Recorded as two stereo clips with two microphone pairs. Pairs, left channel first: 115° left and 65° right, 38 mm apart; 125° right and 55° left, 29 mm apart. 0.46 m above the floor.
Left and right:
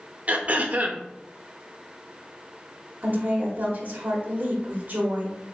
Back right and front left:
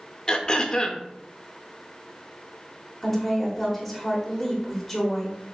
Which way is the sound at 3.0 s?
35° right.